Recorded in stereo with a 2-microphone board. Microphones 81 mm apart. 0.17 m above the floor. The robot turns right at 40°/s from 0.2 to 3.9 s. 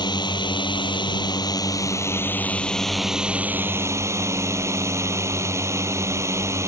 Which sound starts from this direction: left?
A drone, at 0.0 s.